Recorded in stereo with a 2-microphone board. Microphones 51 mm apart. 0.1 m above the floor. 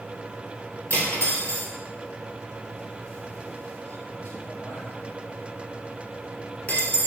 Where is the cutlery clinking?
30° left (ahead or behind), 1.1 m.